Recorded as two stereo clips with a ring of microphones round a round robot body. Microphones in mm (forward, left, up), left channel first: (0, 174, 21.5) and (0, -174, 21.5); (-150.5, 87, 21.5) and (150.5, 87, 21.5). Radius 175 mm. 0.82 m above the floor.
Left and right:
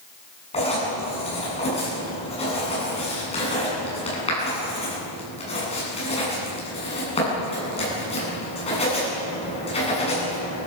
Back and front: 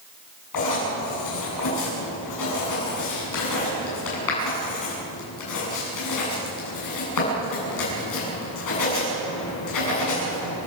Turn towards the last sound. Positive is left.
turn(degrees=165)